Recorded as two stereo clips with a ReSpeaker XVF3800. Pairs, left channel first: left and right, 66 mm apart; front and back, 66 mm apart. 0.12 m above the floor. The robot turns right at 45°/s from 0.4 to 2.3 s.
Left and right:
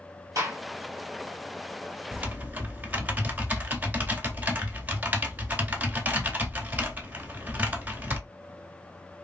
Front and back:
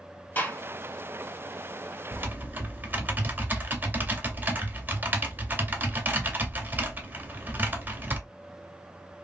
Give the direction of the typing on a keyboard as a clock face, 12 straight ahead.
5 o'clock.